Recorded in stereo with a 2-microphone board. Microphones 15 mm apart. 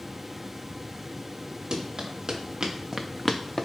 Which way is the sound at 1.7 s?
60° right (ahead or behind).